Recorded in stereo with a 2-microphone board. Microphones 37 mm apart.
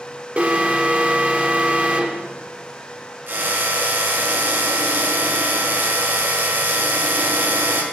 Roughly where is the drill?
Right.